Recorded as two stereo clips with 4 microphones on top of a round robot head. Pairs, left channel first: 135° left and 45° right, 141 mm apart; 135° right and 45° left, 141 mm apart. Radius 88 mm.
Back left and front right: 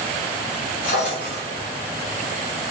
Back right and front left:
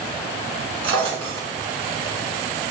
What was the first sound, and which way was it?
A drawer, 100° left.